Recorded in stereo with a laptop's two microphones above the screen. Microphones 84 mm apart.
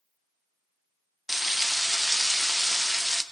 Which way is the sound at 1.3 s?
Centre (ahead or behind).